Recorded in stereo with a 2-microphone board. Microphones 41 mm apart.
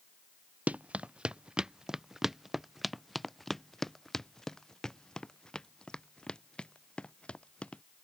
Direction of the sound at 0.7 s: 30° right (ahead or behind).